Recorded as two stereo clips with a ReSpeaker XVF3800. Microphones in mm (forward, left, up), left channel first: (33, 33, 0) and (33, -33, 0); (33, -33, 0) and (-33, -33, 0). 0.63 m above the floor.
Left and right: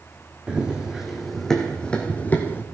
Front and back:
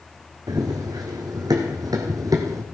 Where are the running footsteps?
165° right, 3 m; by 2.6 s 145° left, 2.5 m.